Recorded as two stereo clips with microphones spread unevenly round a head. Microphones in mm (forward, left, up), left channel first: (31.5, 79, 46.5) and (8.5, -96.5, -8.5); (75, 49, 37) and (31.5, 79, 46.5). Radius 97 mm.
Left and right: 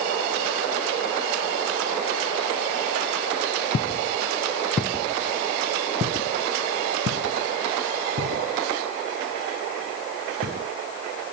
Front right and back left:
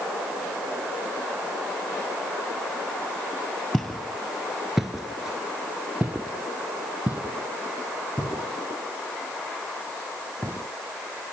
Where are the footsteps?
60° left, 2 m; by 10.7 s 135° right, 6 m.